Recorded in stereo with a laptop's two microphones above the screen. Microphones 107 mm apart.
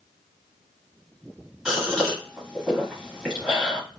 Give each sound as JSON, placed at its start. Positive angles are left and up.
{"t": 1.6, "sound": "a gasp", "side_deg": -5, "distance_m": 1.1}